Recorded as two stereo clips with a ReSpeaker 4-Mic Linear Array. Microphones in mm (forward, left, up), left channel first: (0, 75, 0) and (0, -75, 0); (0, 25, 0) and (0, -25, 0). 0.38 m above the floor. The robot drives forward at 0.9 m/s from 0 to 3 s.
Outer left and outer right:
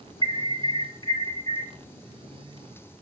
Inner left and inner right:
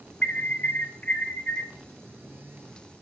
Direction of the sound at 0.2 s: 35° left (ahead or behind).